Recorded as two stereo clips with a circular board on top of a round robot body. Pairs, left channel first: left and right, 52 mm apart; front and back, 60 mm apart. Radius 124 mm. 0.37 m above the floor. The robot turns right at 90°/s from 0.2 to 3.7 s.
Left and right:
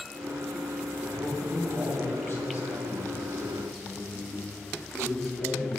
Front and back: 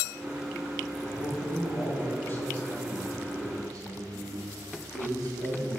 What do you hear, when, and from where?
1.1 s a man speaking: 60° right, 4 m; by 5.8 s 175° left, 4 m